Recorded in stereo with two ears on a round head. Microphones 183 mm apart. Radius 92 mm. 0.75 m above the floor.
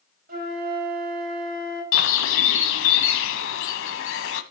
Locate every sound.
0.3 s a flute: 45° right (ahead or behind), 4.5 m
1.9 s a bird: 65° left (ahead or behind), 1.1 m